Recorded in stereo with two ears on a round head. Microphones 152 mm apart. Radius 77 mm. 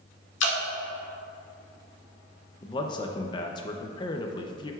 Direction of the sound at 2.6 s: 25° left (ahead or behind).